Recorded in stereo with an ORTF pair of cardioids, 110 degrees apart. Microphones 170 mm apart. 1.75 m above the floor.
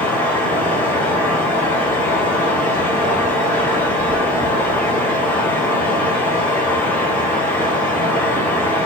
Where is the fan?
10° left, 1.8 m.